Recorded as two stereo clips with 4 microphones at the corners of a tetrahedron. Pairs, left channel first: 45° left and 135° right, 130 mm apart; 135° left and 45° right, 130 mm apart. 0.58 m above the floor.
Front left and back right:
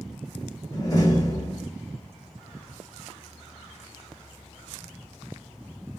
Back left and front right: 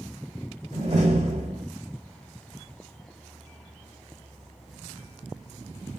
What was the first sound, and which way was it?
A door slam, 15° right.